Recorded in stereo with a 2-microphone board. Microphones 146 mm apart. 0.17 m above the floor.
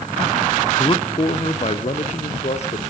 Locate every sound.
0.8 s a man speaking: 30° left (ahead or behind), 1.1 m; by 2.8 s 50° left (ahead or behind), 3.5 m